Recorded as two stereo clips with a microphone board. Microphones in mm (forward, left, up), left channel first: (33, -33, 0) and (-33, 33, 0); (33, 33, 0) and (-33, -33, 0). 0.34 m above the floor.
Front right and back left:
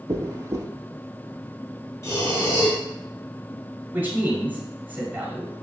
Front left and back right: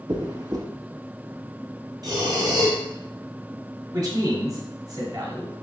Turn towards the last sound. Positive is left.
turn(degrees=-160)